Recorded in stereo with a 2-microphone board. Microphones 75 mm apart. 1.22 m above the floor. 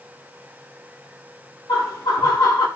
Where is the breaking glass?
No breaking glass in this recording.